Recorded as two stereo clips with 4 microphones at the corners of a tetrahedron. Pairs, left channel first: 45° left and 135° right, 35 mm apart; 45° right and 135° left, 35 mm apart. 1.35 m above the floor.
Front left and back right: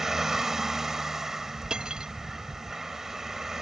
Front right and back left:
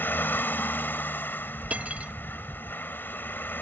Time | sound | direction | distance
0.0 | a vehicle | 55° right | ?
1.7 | cutlery clinking | 165° left | ?